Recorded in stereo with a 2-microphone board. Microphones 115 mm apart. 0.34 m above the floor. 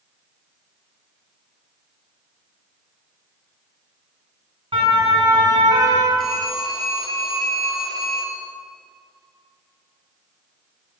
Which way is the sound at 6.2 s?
5° left (ahead or behind).